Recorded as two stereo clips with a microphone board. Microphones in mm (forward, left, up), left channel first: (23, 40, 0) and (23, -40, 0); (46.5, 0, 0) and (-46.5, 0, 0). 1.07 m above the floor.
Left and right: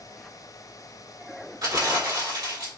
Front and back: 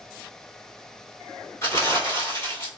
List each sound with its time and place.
1.6 s crumpling: 60° right, 2 m